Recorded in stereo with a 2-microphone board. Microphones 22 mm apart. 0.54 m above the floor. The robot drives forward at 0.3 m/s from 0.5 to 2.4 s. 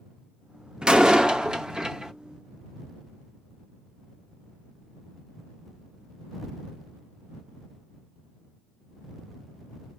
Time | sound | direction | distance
0.8 | a door slam | 40° right (ahead or behind) | 0.6 m